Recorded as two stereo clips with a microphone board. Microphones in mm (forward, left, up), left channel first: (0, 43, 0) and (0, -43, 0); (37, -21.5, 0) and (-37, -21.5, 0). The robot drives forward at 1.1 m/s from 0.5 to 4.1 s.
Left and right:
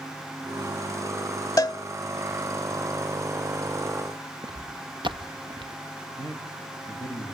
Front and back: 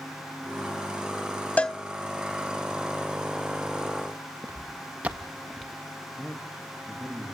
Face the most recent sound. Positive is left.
turn(degrees=-95)